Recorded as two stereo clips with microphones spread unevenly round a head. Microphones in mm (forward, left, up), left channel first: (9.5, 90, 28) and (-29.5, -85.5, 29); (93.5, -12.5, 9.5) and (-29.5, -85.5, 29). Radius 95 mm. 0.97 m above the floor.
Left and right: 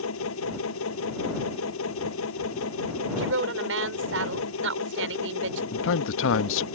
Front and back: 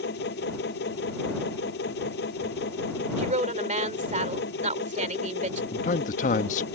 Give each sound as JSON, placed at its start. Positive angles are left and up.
{"t": 0.0, "sound": "a machine running", "azimuth_deg": 65}
{"t": 3.2, "sound": "a woman speaking", "azimuth_deg": -115}
{"t": 5.7, "sound": "a man speaking", "azimuth_deg": 75}